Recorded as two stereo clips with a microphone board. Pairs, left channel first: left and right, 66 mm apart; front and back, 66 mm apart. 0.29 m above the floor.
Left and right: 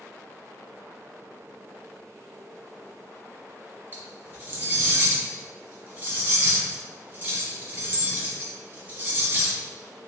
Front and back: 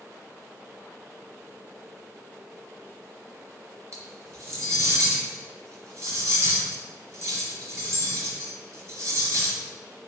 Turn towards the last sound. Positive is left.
turn(degrees=-145)